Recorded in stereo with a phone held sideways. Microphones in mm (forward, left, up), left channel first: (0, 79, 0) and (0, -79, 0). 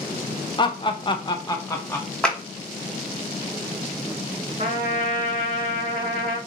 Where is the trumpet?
65° right (ahead or behind), 1.8 m.